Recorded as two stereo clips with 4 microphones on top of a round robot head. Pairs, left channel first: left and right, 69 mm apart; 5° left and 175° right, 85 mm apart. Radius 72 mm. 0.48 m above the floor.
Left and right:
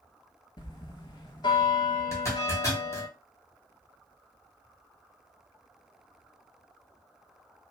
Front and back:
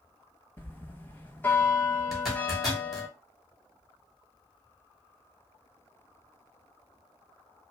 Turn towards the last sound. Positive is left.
turn(degrees=95)